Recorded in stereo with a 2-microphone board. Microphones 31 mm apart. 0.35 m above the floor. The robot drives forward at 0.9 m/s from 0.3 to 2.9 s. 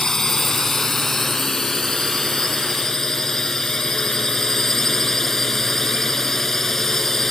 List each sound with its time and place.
0.0 s a drone: 15° left (ahead or behind); by 7.3 s 10° left (ahead or behind)